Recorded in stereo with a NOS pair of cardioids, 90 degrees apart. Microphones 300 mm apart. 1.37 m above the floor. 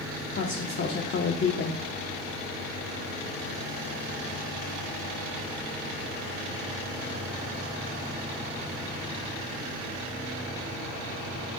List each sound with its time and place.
0.3 s a woman speaking: 40° left, 1.2 m